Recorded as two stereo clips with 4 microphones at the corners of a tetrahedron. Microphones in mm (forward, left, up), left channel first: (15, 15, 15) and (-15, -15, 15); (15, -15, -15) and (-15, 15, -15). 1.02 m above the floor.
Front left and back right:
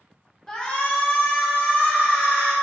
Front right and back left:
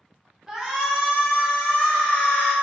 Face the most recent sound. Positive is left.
turn(degrees=15)